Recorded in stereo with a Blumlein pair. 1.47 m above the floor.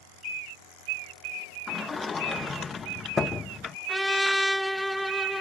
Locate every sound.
1.7 s a sliding door: 20° left
3.9 s a trumpet: straight ahead